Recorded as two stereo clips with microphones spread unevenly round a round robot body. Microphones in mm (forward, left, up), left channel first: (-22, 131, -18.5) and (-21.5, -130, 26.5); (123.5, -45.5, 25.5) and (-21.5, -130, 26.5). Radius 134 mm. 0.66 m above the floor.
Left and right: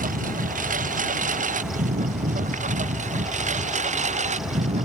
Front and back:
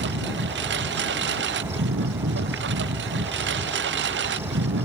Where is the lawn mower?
150° right; by 4.9 s 155° right.